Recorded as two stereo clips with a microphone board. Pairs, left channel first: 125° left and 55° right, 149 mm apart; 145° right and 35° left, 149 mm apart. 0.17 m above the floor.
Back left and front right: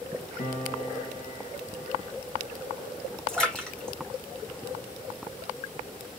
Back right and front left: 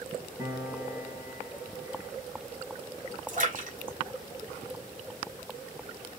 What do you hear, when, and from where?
0.4 s a piano: 95° left, 3.5 m
3.3 s a splash: 40° left, 1.7 m